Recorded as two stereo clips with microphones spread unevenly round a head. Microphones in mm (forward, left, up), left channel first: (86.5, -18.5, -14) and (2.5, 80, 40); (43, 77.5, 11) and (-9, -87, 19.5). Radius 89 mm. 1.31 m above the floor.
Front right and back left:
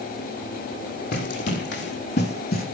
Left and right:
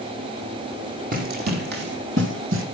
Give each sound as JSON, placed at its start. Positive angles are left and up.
{"t": 1.1, "sound": "running footsteps", "azimuth_deg": -70, "distance_m": 3.5}